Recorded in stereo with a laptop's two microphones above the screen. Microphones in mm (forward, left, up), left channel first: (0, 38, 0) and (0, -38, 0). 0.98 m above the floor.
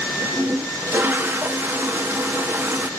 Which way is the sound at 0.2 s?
30° right (ahead or behind).